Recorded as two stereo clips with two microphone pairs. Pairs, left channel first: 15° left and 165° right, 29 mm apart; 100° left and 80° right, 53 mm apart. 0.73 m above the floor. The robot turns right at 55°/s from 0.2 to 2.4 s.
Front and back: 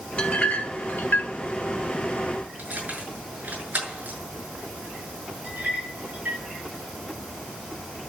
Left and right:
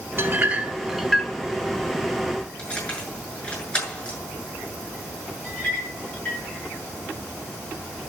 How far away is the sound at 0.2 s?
About 1.6 m.